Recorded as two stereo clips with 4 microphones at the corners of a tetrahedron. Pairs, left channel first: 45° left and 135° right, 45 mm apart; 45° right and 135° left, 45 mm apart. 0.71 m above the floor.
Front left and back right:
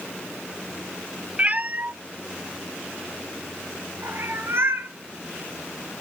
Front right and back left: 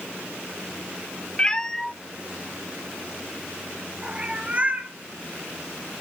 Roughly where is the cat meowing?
Right.